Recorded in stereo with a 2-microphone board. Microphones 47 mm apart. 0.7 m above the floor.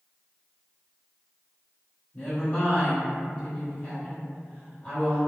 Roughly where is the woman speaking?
Left.